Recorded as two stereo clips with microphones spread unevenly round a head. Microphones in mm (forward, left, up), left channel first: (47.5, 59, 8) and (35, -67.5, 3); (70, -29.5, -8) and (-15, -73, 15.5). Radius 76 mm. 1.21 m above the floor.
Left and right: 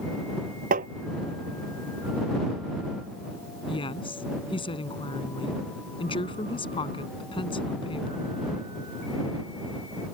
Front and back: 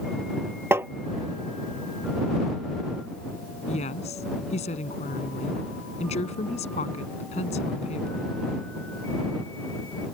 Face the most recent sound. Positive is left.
turn(degrees=35)